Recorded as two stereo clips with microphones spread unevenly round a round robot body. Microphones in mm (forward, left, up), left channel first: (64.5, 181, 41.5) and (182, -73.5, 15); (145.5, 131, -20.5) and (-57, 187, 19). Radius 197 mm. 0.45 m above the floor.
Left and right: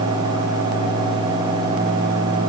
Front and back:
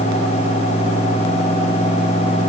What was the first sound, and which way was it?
Only background noise.